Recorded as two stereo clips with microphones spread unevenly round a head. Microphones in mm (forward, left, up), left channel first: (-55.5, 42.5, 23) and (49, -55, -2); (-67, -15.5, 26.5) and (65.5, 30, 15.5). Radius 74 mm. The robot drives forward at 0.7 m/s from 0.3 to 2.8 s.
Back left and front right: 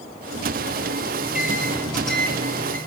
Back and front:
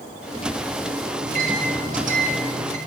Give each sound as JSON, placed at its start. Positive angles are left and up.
{"t": 1.2, "sound": "a microwave", "azimuth_deg": 45, "distance_m": 4.5}